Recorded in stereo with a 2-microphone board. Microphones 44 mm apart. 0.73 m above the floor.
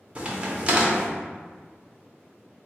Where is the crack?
25° right (ahead or behind), 0.9 m.